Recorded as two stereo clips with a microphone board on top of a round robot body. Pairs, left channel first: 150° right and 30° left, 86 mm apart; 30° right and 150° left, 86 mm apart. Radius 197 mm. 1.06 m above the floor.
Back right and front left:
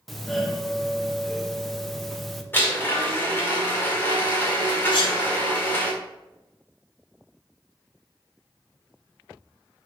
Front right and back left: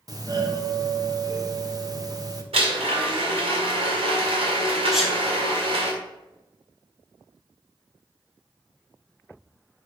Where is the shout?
No shout in this recording.